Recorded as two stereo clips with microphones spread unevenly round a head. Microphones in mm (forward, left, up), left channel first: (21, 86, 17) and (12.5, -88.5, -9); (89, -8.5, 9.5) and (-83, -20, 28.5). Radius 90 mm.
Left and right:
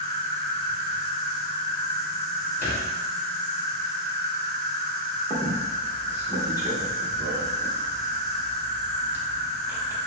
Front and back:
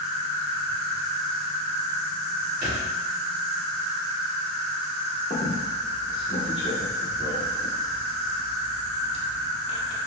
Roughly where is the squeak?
Ahead.